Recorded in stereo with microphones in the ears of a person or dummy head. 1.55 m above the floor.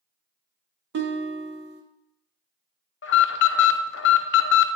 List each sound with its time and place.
0.9 s a guitar: 55° right (ahead or behind), 0.8 m
3.0 s an alarm: 50° left (ahead or behind), 0.6 m